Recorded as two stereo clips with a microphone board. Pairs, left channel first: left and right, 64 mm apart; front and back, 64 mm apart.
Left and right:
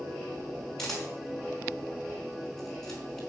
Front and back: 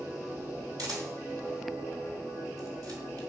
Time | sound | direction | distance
0.8 | a camera shutter | 175° left | 4 m